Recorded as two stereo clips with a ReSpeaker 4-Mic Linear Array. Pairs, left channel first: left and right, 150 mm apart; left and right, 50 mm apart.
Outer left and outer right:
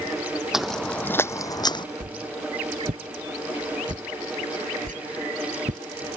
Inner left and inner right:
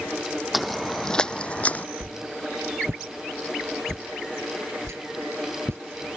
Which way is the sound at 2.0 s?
65° right (ahead or behind).